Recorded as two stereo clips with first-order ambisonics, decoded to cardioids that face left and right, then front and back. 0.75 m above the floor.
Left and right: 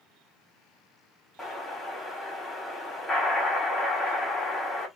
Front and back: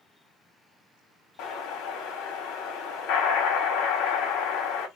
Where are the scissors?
I don't hear scissors.